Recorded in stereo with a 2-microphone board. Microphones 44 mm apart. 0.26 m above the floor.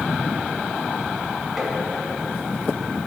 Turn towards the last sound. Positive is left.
turn(degrees=-5)  # may be behind; listen again after turning